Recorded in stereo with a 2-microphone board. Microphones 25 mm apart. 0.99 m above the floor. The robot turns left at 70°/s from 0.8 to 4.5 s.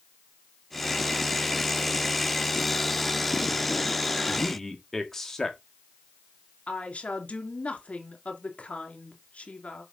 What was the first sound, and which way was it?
A man speaking, centre (ahead or behind).